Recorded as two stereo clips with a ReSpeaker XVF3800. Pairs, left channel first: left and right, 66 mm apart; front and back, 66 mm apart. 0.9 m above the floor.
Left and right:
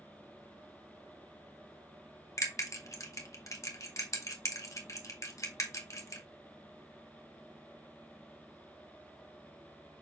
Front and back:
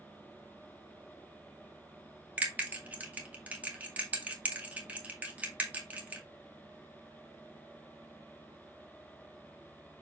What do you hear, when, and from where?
2.4 s a bell: 120° left, 1.9 m